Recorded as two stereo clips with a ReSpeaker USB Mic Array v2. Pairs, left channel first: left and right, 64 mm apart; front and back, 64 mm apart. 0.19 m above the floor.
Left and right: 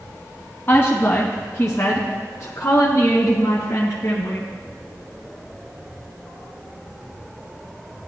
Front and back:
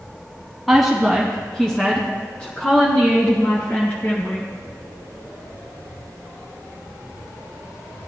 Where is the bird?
No bird in this recording.